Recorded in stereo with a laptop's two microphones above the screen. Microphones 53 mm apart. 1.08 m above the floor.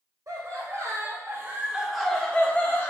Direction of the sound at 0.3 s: 80° right.